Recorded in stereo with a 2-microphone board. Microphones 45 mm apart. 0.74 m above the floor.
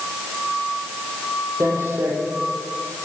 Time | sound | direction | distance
1.6 | footsteps | 80° right | 6 m